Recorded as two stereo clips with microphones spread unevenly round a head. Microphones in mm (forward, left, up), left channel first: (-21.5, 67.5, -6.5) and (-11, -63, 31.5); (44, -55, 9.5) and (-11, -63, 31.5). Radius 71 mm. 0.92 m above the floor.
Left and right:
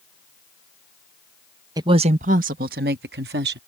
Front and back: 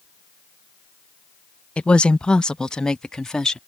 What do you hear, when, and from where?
1.8 s a woman speaking: 15° right; by 3.6 s 65° right